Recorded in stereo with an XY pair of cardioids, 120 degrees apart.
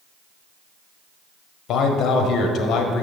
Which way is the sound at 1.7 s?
60° left.